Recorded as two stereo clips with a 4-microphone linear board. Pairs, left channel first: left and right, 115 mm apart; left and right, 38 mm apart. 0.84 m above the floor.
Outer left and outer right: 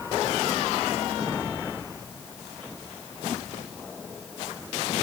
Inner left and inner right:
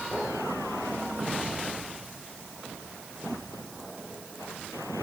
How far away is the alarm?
I don't hear an alarm.